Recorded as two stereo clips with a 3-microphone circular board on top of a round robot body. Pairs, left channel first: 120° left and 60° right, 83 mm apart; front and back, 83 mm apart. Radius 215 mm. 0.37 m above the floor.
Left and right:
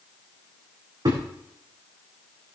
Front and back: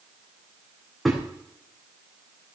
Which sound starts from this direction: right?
A thud, at 1.1 s.